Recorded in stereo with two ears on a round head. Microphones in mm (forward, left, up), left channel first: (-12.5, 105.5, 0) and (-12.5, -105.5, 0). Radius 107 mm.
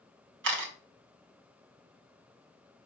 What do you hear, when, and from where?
0.4 s a camera shutter: 50° right (ahead or behind), 2.5 m